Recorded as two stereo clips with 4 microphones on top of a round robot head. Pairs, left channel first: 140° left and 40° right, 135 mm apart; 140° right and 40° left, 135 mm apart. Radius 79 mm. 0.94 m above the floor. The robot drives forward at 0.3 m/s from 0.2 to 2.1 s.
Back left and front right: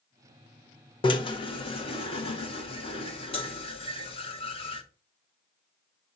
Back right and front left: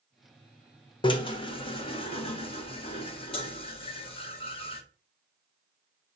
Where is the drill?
Straight behind, 1.3 m.